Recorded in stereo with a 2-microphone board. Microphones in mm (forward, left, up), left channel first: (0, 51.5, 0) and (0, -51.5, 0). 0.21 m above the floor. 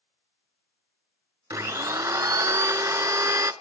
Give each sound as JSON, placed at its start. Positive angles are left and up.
{"t": 1.5, "sound": "a blender", "side_deg": -35, "distance_m": 0.6}